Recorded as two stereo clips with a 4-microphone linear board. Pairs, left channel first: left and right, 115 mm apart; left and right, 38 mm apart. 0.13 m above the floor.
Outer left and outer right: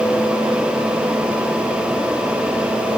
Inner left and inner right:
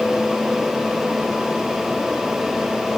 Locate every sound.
Only background noise.